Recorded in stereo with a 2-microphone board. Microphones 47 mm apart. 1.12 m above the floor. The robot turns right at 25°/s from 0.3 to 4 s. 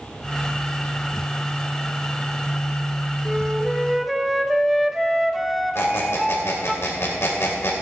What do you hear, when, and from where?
3.2 s a flute: 15° right (ahead or behind), 0.8 m; by 6.8 s centre (ahead or behind), 0.8 m
5.8 s a squeak: 65° left (ahead or behind), 2.5 m